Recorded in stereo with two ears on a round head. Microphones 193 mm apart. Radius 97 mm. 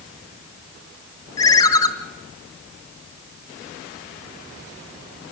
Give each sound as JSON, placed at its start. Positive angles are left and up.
{"t": 1.4, "sound": "a ringtone", "side_deg": 20, "distance_m": 1.4}